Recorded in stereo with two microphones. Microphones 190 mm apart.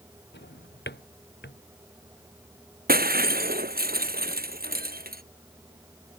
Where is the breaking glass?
55° right (ahead or behind).